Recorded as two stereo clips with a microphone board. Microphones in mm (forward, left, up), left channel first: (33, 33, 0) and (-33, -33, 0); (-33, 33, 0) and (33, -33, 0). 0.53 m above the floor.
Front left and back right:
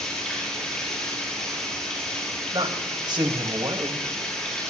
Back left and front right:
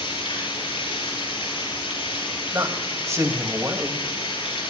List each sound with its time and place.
0.0 s running water: 130° left, 5.5 m
2.5 s a man speaking: 100° right, 2.5 m